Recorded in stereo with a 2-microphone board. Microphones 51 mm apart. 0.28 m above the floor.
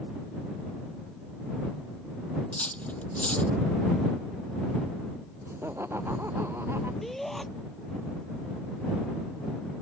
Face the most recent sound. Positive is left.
turn(degrees=5)  # may be behind; listen again after turning